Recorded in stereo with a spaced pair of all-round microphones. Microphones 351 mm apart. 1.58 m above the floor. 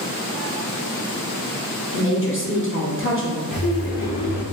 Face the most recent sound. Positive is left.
turn(degrees=70)  # may be behind; listen again after turning